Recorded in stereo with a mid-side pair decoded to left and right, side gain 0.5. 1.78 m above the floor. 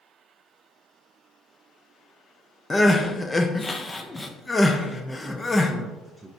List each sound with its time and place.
2.7 s crying: 20° left, 1.0 m
4.9 s a man speaking: 15° right, 0.8 m